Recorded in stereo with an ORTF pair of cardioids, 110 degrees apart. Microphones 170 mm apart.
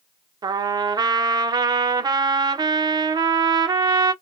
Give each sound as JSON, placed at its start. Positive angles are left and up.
{"t": 0.4, "sound": "a trumpet", "azimuth_deg": -25, "distance_m": 0.5}